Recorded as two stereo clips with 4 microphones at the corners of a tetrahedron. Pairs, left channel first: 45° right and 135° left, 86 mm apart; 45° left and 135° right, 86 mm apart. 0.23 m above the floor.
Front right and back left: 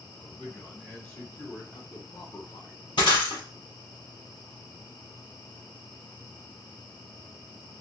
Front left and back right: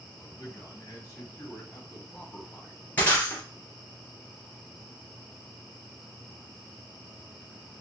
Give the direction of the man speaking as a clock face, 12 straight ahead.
11 o'clock.